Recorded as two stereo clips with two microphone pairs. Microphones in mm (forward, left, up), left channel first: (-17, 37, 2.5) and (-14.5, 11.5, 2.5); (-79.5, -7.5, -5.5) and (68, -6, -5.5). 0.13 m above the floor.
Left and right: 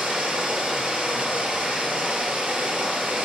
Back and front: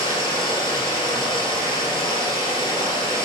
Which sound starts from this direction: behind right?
Running water, at 0.0 s.